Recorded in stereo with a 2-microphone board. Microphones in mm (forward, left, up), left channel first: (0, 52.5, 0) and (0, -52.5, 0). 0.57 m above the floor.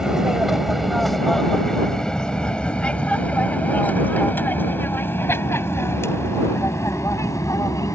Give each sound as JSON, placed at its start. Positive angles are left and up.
{"t": 0.0, "sound": "an aircraft", "side_deg": -5}